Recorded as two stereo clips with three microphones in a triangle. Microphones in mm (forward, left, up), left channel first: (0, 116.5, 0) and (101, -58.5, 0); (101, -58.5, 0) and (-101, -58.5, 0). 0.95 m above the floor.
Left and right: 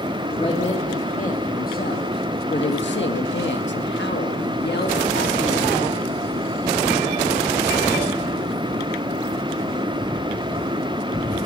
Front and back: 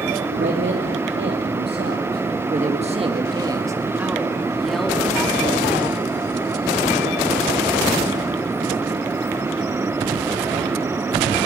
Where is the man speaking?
Straight behind, 2.5 m; by 5.7 s 80° left, 3 m.